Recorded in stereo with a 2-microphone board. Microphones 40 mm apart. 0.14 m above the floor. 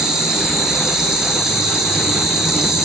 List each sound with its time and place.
0.0 s an insect: 15° right (ahead or behind), 1.5 m